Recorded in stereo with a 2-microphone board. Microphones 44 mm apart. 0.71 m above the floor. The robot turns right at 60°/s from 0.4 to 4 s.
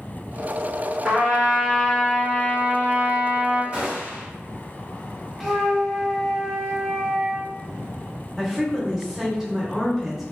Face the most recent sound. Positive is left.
turn(degrees=-10)  # may be behind; listen again after turning